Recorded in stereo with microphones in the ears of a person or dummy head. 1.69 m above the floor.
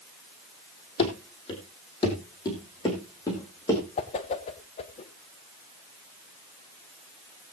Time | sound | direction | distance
1.0 | running footsteps | 30° left (ahead or behind) | 3 m
4.0 | a whoosh | 30° left (ahead or behind) | 1.0 m